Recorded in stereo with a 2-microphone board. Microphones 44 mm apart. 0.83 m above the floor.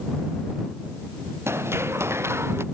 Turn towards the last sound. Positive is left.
turn(degrees=-85)